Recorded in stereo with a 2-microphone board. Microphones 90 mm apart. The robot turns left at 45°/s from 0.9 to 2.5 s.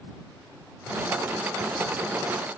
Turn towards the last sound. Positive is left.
No sound to turn to.